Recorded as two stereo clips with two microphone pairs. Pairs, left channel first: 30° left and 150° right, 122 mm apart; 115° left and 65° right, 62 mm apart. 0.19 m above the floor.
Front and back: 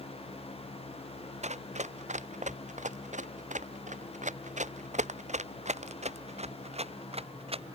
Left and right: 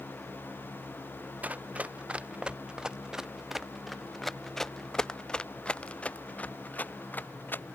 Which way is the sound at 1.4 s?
130° right.